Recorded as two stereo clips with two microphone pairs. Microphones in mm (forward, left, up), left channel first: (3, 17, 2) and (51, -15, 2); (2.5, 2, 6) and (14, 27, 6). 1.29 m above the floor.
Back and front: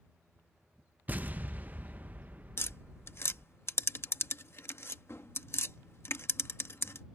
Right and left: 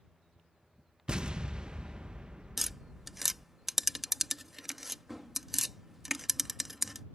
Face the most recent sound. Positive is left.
turn(degrees=140)